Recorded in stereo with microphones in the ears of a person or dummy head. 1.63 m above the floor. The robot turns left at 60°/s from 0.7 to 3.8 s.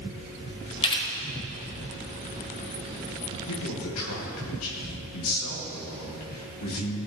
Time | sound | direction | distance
0.8 | a camera shutter | 30° left (ahead or behind) | 1.8 m
3.5 | a man speaking | 75° left (ahead or behind) | 2 m